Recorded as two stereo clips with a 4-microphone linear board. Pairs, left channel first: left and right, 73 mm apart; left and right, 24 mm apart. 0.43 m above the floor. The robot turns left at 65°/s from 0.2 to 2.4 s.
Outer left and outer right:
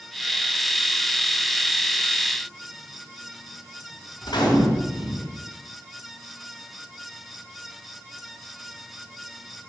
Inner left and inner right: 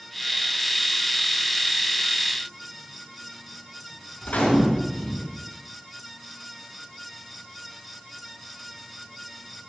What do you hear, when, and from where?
4.2 s a gunshot: 75° left (ahead or behind), 4 m